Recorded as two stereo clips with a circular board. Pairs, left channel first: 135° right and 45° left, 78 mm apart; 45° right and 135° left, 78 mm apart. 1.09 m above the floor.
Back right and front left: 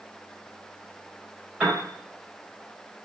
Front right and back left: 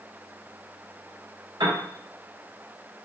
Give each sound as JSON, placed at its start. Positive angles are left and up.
{"t": 1.6, "sound": "a piano", "azimuth_deg": 120, "distance_m": 3.5}